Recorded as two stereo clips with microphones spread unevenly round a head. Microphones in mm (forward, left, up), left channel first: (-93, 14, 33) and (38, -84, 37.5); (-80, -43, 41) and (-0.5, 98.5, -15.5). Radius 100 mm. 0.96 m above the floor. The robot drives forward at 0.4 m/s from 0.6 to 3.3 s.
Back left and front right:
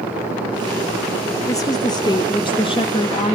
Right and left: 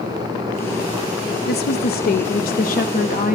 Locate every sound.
1.5 s a woman speaking: 150° right, 1.0 m; by 3.4 s 165° right, 1.6 m